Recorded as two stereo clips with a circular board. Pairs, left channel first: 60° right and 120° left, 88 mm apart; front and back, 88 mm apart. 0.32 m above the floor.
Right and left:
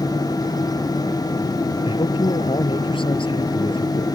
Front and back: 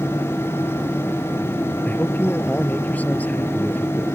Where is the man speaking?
75° right.